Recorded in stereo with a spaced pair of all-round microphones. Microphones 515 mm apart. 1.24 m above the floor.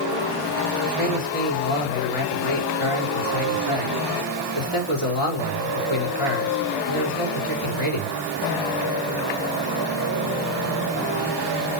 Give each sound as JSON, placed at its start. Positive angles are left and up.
{"t": 0.8, "sound": "a man speaking", "side_deg": 65, "distance_m": 3.5}